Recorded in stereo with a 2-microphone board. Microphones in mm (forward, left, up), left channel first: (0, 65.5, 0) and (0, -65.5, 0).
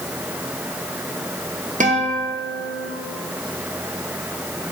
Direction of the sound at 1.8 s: 70° right (ahead or behind).